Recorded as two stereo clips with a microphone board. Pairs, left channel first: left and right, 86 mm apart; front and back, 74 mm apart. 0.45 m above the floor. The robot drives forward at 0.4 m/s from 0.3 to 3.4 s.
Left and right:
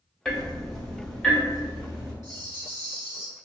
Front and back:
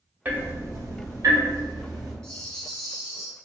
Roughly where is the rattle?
Right.